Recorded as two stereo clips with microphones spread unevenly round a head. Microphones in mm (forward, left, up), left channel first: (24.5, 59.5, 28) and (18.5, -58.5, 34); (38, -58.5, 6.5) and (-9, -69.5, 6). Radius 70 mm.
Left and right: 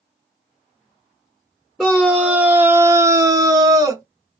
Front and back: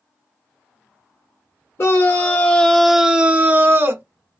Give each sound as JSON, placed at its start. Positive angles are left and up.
{"t": 1.8, "sound": "a scream", "azimuth_deg": 0, "distance_m": 0.8}